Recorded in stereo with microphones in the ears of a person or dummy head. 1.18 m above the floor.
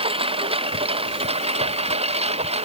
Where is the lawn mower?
35° right (ahead or behind); by 2.7 s 40° right (ahead or behind).